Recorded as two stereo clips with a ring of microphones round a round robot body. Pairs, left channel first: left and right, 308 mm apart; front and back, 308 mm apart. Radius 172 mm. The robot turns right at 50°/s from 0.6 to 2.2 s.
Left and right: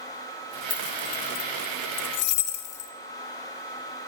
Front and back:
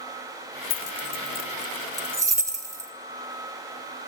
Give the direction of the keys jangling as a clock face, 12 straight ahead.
11 o'clock.